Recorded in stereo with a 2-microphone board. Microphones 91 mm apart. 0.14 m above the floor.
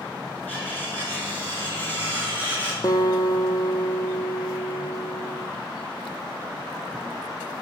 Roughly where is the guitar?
Left.